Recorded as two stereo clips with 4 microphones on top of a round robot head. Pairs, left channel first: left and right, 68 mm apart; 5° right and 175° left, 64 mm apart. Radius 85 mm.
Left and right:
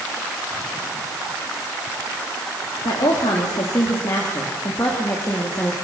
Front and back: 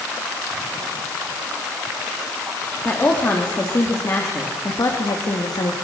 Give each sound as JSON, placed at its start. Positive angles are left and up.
{"t": 2.9, "sound": "a woman speaking", "azimuth_deg": 55, "distance_m": 3.5}